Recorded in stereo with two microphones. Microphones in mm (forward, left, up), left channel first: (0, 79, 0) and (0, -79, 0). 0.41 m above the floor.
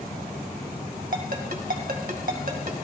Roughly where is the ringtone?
Right.